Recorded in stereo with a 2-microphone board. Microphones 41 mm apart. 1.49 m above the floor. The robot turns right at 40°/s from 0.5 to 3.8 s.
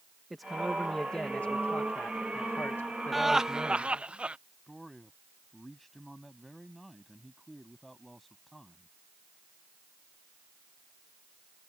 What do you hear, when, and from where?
0.3 s a man speaking: straight ahead; by 4.0 s 130° left
3.1 s laughter: centre (ahead or behind); by 4.4 s 30° right (ahead or behind)
4.7 s a man speaking: centre (ahead or behind)